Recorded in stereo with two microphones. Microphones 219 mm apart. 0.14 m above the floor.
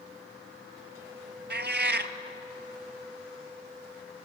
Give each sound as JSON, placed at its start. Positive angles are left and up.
{"t": 1.5, "sound": "a cat meowing", "side_deg": -50, "distance_m": 0.9}